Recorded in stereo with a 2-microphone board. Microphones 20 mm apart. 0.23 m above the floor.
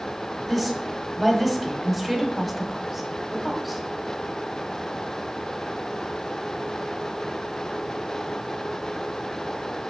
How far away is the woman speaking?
About 1.3 m.